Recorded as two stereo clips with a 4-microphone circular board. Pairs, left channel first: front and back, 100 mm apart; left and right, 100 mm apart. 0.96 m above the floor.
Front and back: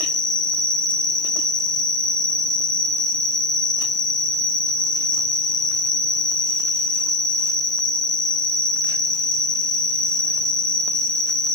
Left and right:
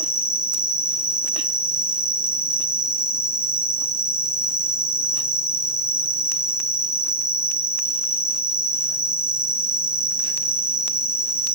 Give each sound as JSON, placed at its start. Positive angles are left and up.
{"t": 0.0, "sound": "an insect", "azimuth_deg": -45, "distance_m": 0.9}